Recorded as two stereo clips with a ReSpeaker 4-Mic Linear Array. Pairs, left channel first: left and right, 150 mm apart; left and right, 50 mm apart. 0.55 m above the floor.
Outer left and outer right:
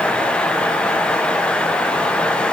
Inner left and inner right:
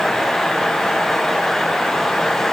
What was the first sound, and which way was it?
Only background noise.